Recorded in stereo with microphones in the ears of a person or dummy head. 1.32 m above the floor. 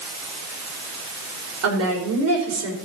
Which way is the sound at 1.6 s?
80° right.